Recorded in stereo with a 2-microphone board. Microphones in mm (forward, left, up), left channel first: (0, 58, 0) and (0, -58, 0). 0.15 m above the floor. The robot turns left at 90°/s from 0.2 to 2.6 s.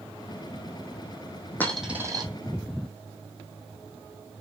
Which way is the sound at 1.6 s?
15° left (ahead or behind).